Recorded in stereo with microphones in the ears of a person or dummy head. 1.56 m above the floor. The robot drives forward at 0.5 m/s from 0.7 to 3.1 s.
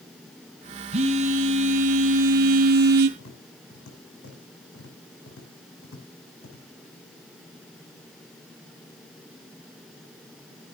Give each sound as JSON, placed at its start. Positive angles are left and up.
{"t": 0.9, "sound": "a phone buzzing", "side_deg": -35, "distance_m": 2.0}
{"t": 3.2, "sound": "tapping", "side_deg": 70, "distance_m": 6.0}